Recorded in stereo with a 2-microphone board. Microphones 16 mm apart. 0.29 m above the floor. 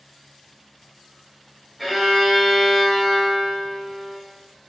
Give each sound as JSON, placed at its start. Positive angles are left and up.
{"t": 1.8, "sound": "a violin", "side_deg": 0, "distance_m": 1.0}